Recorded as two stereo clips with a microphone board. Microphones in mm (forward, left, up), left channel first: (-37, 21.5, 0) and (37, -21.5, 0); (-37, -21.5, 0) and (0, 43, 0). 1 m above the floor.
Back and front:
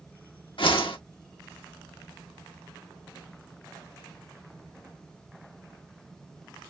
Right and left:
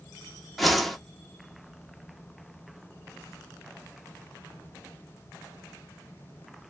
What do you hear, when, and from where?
0.6 s a whoosh: 150° left, 1.4 m